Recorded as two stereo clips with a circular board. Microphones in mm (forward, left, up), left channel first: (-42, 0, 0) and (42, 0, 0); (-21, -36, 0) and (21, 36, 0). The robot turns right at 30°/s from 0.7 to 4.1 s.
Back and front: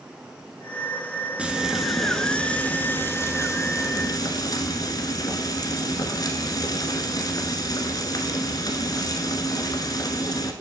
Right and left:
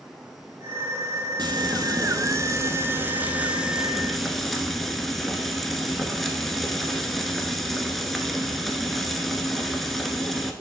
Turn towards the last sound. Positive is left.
turn(degrees=155)